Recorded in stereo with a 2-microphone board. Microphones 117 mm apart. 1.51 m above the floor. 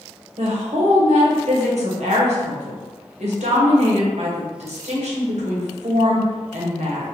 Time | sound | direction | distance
0.4 | a woman speaking | 70° right (ahead or behind) | 0.9 m